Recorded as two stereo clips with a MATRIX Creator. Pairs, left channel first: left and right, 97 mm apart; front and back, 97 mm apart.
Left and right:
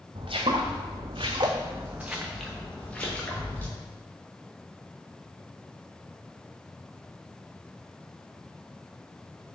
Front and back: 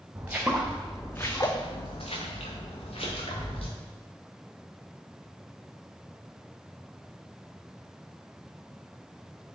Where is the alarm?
I don't hear an alarm.